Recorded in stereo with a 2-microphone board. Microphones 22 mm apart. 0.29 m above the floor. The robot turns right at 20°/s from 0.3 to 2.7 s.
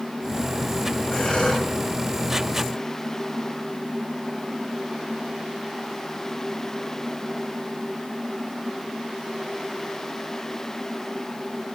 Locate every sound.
1.1 s breathing: 75° left (ahead or behind), 3.5 m; by 1.7 s 65° left (ahead or behind), 3.5 m